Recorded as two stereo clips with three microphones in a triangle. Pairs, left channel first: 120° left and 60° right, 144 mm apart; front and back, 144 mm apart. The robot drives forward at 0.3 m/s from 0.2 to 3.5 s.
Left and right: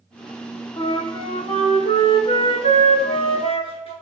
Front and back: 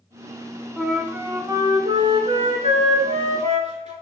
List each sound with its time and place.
0.8 s a flute: 90° left, 0.5 m; by 3.9 s 160° left, 1.0 m